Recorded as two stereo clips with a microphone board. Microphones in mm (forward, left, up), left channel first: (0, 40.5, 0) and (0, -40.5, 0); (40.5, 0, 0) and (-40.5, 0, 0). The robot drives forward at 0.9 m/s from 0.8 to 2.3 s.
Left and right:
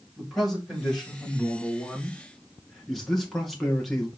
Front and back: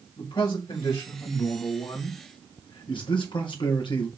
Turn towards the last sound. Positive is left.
turn(degrees=0)